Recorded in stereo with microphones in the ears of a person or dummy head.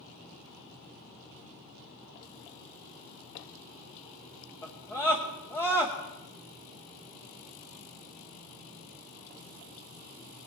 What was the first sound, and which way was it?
A scream, 15° left (ahead or behind).